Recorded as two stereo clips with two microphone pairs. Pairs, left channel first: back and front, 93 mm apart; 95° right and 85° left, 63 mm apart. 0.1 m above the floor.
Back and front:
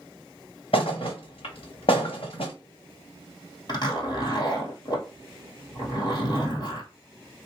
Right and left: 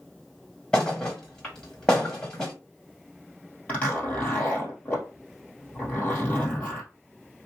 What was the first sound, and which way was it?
A thud, 170° right.